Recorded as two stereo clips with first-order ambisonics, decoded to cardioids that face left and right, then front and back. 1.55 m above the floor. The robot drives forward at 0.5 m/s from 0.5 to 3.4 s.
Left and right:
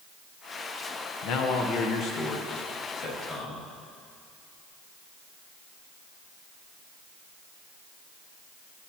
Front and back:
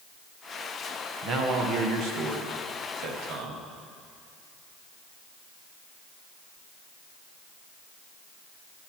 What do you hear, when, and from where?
1.2 s a man speaking: 125° left, 0.9 m; by 3.6 s 155° left, 1.8 m